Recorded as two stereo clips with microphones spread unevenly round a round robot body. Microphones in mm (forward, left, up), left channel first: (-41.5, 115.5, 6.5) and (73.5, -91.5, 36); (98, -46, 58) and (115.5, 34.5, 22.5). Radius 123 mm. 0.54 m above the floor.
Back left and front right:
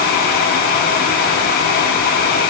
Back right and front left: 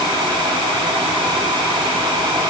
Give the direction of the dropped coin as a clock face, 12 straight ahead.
I don't hear a dropped coin.